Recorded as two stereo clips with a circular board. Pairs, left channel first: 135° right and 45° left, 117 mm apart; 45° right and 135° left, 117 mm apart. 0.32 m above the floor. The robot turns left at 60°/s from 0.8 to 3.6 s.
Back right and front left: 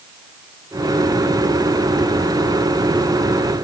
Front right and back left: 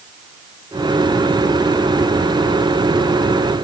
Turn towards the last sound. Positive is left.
No sound to turn to.